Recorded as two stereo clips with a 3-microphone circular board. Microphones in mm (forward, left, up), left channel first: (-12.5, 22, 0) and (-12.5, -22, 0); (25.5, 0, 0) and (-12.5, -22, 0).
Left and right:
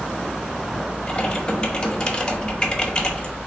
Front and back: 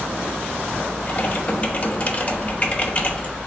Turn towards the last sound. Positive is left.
turn(degrees=45)